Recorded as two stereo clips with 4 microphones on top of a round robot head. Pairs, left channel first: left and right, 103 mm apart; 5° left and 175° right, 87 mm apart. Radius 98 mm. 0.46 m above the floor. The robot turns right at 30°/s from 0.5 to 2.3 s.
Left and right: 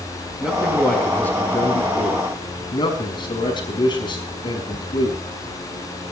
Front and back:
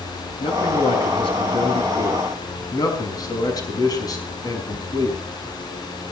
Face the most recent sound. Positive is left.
turn(degrees=45)